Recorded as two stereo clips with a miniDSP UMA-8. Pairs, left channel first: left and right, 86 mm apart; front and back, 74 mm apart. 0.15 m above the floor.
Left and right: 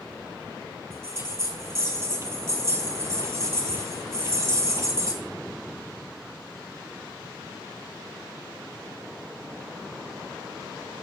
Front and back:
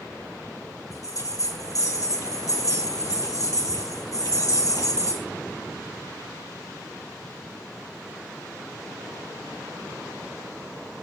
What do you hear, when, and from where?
0.9 s a bell: 35° right, 1.8 m